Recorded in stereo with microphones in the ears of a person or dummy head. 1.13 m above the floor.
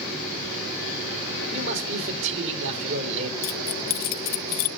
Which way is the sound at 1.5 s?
70° right (ahead or behind).